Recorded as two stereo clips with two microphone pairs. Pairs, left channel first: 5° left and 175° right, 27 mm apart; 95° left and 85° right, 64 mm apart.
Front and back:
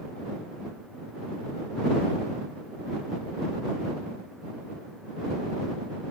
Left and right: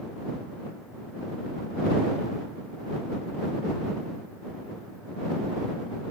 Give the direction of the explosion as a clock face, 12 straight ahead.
I don't hear an explosion.